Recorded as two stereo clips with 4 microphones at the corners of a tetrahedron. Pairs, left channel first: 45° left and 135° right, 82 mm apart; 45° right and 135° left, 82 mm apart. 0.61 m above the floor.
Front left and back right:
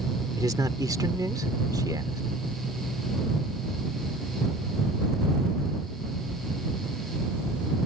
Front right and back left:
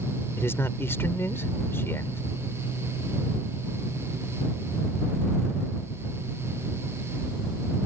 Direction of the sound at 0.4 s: 100° right.